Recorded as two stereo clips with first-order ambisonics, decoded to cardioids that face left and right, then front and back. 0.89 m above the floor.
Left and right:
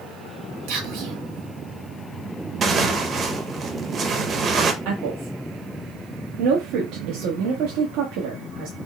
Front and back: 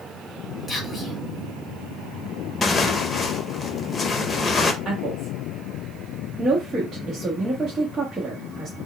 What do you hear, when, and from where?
0.7 s whispering: 85° right, 2.5 m
2.6 s tearing paper: 55° right, 0.6 m
4.8 s a woman speaking: 100° right, 1.2 m